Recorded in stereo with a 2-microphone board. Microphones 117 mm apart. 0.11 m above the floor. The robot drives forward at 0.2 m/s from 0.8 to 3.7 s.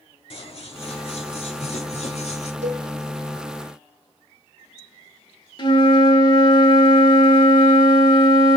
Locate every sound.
0.3 s scissors: 50° left (ahead or behind), 0.9 m; by 2.5 s 65° left (ahead or behind), 0.8 m
2.6 s a cowbell: 75° right (ahead or behind), 0.9 m
5.6 s a flute: 40° left (ahead or behind), 0.6 m